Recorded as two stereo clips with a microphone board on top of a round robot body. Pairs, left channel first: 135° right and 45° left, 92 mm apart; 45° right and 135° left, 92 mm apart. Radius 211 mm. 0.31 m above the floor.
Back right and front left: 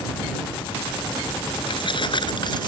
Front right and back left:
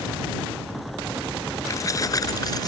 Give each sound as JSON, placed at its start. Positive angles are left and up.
{"t": 1.7, "sound": "keys jangling", "azimuth_deg": -100}